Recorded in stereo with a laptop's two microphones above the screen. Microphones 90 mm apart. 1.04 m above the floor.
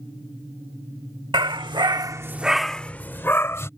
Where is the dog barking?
60° right (ahead or behind); by 3.7 s 30° left (ahead or behind).